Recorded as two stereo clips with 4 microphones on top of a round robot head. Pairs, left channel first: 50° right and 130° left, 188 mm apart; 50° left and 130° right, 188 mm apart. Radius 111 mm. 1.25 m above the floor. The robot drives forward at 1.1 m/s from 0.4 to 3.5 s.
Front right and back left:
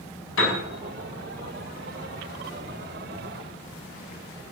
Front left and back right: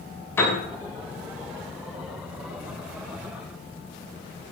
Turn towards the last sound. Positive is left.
turn(degrees=-55)